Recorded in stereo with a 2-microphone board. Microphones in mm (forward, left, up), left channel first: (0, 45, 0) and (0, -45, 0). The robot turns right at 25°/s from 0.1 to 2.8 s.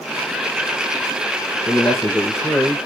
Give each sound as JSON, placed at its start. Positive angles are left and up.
{"t": 1.7, "sound": "a man speaking", "side_deg": 25, "distance_m": 1.2}